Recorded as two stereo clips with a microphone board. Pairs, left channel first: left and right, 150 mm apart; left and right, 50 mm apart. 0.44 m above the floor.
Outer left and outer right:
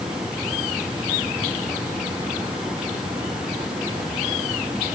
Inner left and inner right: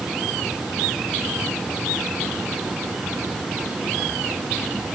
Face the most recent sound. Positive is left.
No sound to turn to.